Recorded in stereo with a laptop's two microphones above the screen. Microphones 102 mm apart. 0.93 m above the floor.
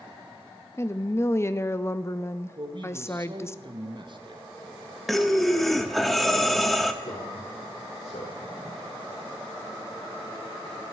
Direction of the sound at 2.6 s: 50° right (ahead or behind).